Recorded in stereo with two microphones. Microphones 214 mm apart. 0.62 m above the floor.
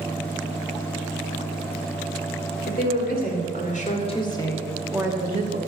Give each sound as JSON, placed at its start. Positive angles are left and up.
{"t": 2.7, "sound": "a woman speaking", "side_deg": 50, "distance_m": 2.5}